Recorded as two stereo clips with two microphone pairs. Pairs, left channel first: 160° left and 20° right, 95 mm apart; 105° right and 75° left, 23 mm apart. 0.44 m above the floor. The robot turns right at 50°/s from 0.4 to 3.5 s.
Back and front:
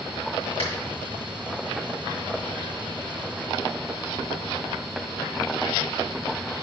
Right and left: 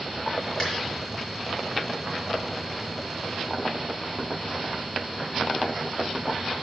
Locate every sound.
0.6 s a finger snap: straight behind, 5 m; by 0.7 s 175° right, 5 m